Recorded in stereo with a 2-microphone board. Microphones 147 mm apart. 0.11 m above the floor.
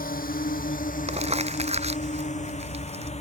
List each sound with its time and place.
0.0 s a drone: 75° left (ahead or behind); by 3.2 s 45° left (ahead or behind)
1.1 s crumpling: 45° right (ahead or behind)